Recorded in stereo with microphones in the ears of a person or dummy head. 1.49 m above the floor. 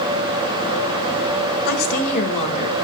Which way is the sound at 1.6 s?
55° left (ahead or behind).